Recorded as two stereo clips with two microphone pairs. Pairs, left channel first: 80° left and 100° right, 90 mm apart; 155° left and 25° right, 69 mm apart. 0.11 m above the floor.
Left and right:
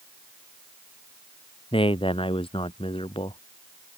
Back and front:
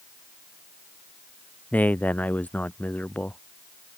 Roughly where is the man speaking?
Left.